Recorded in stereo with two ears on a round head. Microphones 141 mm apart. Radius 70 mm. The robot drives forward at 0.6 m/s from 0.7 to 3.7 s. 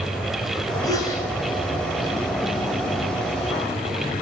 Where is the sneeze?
25° left (ahead or behind), 8 m.